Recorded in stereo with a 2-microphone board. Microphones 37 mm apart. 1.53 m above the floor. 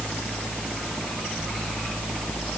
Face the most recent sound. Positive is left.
No sound to turn to.